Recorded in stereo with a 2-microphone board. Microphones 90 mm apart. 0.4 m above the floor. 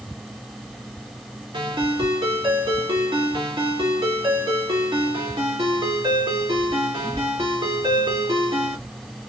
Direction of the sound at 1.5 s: 70° right (ahead or behind).